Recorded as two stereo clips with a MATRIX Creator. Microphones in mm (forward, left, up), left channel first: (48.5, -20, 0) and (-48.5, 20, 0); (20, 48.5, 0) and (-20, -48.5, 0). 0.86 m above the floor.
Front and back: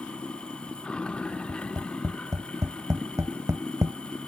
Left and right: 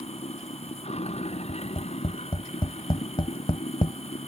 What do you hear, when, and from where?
0.0 s running water: 60° left
1.5 s tapping: 100° left